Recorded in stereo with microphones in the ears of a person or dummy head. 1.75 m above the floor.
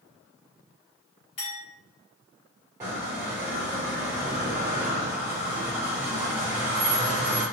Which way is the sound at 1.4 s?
40° left (ahead or behind).